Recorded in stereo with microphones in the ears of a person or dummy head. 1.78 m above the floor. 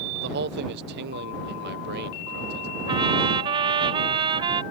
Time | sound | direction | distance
0.1 | a man speaking | 65° right (ahead or behind) | ?
2.9 | a trumpet | 25° right (ahead or behind) | ?